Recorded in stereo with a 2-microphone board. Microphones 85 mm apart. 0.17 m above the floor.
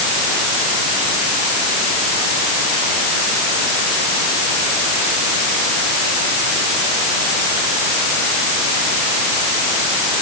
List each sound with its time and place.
Only background noise.